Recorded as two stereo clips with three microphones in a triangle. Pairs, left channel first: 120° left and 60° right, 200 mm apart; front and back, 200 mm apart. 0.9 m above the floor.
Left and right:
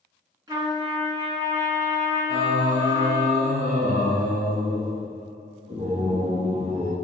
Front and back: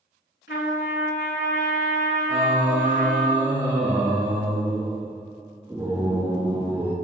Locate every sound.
0.5 s a trumpet: 10° left, 3 m
2.3 s singing: 115° right, 3 m